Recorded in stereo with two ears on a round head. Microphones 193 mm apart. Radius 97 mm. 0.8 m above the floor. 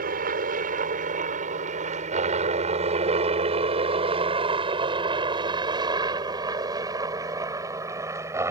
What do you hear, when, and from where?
0.0 s a helicopter: 45° right (ahead or behind); by 8.5 s 15° right (ahead or behind)